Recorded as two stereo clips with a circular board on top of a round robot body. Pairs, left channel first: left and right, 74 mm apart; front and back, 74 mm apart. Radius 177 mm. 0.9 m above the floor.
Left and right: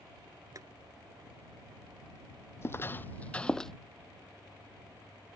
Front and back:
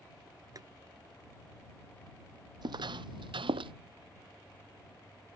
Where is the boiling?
135° right.